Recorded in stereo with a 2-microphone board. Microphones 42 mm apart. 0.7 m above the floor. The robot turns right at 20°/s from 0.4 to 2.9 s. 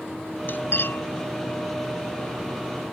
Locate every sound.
0.5 s cutlery clinking: 50° left (ahead or behind); by 1.0 s 65° left (ahead or behind)